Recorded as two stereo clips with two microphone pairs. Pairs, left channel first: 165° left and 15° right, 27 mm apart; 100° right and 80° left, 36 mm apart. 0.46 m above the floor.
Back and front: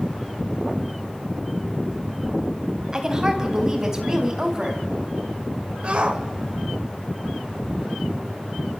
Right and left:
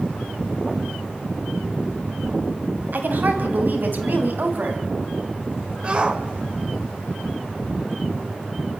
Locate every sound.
2.9 s a woman speaking: 50° left, 3 m; by 4.9 s 55° left, 4 m
5.8 s a shout: 25° left, 2 m